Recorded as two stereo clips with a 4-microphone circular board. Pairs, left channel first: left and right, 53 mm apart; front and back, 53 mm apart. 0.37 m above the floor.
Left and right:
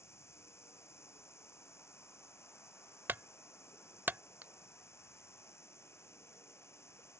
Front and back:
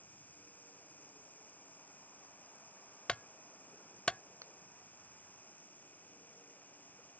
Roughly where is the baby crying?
I don't hear a baby crying.